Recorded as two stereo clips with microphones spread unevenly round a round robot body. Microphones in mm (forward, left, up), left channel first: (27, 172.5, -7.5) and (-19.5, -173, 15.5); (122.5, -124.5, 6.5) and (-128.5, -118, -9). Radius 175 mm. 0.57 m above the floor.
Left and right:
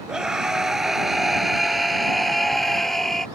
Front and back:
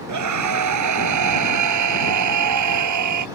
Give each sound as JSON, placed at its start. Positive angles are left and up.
{"t": 0.1, "sound": "a scream", "azimuth_deg": 175}